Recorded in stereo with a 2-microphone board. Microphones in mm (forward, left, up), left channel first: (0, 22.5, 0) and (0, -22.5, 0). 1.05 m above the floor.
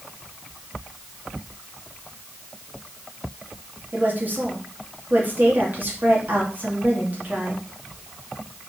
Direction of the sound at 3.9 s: 40° right (ahead or behind).